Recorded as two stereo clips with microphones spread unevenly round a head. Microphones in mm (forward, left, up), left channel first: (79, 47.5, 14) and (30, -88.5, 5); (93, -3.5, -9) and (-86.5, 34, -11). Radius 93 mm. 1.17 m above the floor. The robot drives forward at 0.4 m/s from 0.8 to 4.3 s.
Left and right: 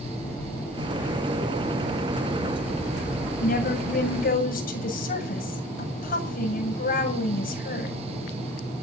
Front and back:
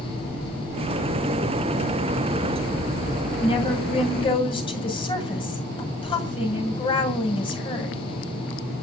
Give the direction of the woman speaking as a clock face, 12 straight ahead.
10 o'clock.